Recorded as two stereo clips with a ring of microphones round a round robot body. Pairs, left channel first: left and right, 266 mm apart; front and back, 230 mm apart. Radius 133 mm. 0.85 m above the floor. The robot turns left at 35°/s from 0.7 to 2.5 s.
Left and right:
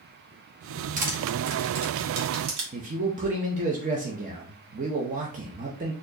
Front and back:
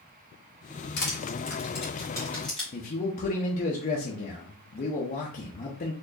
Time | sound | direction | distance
1.0 | crushing | 35° right | 1.3 m
2.7 | a man speaking | 40° right | 0.6 m